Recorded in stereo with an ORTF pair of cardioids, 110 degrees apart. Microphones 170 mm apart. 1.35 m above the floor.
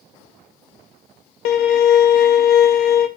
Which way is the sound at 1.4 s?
70° left.